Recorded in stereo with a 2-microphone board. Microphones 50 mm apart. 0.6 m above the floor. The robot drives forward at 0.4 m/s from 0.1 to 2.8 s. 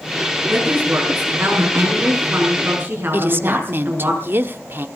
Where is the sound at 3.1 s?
45° right (ahead or behind), 1.2 m.